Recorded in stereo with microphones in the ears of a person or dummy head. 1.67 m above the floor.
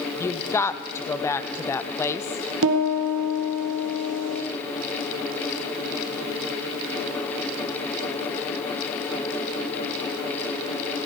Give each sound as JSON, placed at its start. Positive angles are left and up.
{"t": 0.2, "sound": "a woman speaking", "side_deg": 10, "distance_m": 0.7}
{"t": 2.6, "sound": "a piano", "side_deg": -70, "distance_m": 1.6}